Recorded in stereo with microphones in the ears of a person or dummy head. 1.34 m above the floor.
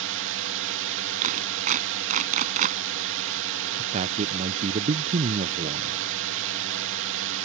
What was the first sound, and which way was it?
A drone, 60° right (ahead or behind).